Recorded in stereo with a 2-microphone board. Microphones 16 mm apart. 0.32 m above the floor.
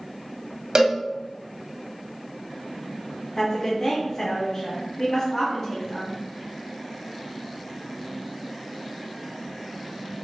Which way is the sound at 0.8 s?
45° right (ahead or behind).